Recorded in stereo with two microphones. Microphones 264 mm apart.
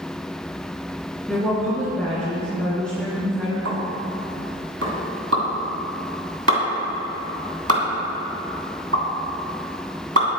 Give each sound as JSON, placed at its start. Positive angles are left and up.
{"t": 1.3, "sound": "a woman speaking", "side_deg": 5, "distance_m": 3.0}
{"t": 3.6, "sound": "a pop", "side_deg": -65, "distance_m": 3.0}